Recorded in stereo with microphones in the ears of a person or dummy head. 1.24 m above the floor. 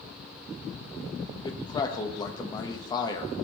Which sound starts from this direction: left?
A man speaking, at 1.4 s.